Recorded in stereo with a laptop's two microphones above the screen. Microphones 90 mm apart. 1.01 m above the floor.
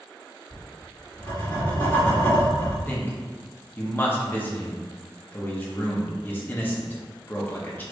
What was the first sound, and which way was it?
Writing, 30° left (ahead or behind).